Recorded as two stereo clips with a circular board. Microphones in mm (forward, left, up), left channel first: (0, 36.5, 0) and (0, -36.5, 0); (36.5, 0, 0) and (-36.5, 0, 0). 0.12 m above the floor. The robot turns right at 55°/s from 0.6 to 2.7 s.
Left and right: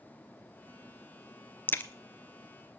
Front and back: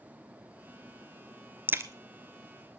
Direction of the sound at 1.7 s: 135° left.